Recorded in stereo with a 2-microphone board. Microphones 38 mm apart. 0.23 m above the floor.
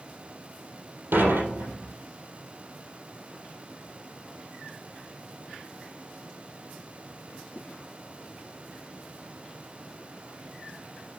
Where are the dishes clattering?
80° right, 4.5 m.